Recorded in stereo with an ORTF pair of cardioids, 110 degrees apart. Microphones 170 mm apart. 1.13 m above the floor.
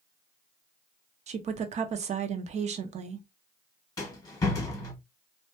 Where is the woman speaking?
45° right, 0.7 m.